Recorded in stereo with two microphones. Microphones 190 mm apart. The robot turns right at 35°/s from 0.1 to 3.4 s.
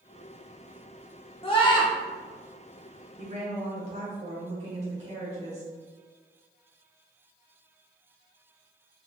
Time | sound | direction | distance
1.4 | a scream | 30° left (ahead or behind) | 0.8 m
3.2 | a woman speaking | 40° right (ahead or behind) | 1.1 m